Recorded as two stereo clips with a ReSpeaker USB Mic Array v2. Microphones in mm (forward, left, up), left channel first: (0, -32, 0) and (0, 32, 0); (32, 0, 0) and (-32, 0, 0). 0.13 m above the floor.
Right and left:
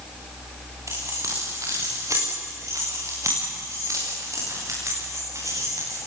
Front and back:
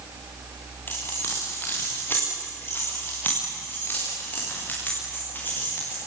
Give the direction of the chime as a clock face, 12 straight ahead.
I don't hear a chime.